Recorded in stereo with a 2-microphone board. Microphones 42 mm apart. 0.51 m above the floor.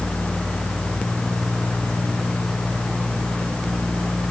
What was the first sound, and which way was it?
Only background noise.